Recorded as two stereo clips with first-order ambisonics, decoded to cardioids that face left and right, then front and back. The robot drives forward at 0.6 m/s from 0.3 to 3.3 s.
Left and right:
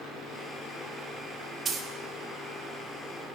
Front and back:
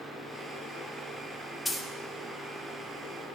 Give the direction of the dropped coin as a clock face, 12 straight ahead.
3 o'clock.